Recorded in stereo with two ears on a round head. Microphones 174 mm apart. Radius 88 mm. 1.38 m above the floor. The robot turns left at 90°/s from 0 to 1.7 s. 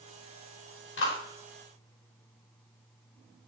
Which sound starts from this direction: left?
A clap, at 1.0 s.